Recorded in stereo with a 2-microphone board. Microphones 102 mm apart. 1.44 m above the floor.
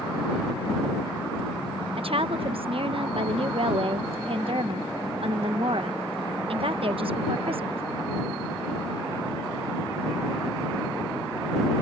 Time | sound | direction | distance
2.0 | a woman speaking | 65° right (ahead or behind) | ?